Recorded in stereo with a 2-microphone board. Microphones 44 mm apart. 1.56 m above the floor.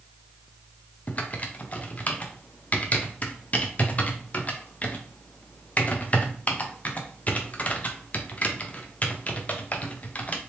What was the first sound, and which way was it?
Typing on a keyboard, 40° left (ahead or behind).